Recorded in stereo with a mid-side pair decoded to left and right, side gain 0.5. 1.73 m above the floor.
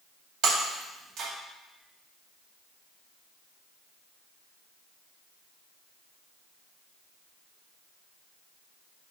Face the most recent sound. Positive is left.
turn(degrees=-65)